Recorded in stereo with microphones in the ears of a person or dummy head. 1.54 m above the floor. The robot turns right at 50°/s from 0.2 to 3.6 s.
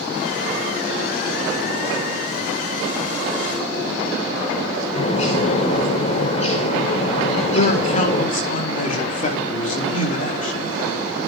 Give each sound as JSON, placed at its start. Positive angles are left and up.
{"t": 5.0, "sound": "a bird", "side_deg": 40, "distance_m": 6.0}
{"t": 7.5, "sound": "a man speaking", "side_deg": 45, "distance_m": 4.5}